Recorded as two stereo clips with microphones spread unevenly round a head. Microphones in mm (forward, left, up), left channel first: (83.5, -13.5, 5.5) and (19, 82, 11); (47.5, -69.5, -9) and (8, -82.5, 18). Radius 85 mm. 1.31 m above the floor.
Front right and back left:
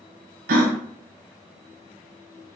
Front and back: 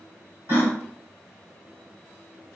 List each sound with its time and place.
0.5 s a gasp: 140° left, 0.6 m